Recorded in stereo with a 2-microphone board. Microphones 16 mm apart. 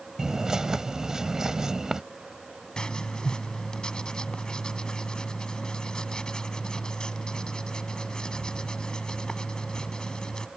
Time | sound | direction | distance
0.2 | a bird | 40° right (ahead or behind) | ?
2.8 | writing | 60° left (ahead or behind) | ?